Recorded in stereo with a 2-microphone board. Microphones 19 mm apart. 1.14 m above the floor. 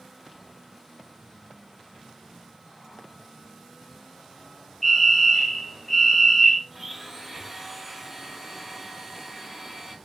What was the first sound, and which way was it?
A fire alarm, 15° left (ahead or behind).